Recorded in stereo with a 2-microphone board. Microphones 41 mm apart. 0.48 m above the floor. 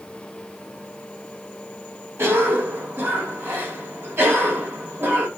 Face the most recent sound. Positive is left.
turn(degrees=-70)  # may be behind; listen again after turning